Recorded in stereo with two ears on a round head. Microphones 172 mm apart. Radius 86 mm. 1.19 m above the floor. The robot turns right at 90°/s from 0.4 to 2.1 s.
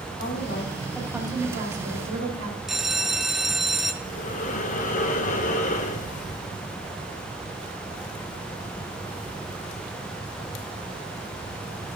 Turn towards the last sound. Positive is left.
turn(degrees=40)  # may be behind; listen again after turning